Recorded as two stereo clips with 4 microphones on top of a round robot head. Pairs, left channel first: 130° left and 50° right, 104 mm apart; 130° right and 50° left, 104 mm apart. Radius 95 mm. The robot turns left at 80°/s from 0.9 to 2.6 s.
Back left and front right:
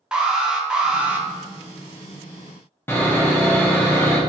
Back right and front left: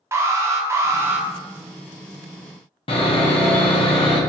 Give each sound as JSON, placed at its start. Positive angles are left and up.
{"t": 0.1, "sound": "an alarm", "azimuth_deg": 25, "distance_m": 0.8}
{"t": 2.9, "sound": "sawing", "azimuth_deg": -160, "distance_m": 0.9}